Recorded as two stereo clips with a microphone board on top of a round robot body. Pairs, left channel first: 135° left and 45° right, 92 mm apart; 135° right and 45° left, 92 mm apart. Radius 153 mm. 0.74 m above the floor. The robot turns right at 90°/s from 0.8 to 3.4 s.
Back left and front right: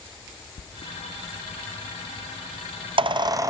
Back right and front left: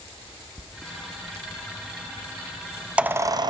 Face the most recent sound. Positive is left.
turn(degrees=5)